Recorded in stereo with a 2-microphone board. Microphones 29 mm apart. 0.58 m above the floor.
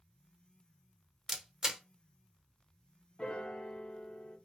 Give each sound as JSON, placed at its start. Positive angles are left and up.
{"t": 1.3, "sound": "a camera shutter", "side_deg": -20, "distance_m": 0.7}
{"t": 3.2, "sound": "a piano", "side_deg": 35, "distance_m": 0.7}